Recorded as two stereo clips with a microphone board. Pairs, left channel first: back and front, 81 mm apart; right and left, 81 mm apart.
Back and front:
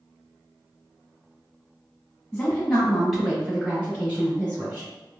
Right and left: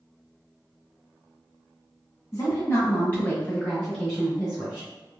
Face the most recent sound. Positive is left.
turn(degrees=20)